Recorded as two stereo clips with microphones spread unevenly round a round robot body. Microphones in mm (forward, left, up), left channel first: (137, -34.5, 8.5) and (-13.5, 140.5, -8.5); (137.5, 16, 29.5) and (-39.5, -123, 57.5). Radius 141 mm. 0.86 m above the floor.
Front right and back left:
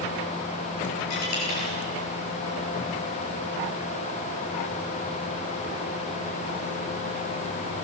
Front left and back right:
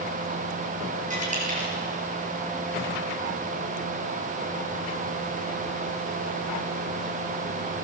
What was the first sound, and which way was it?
A dropped coin, 85° right.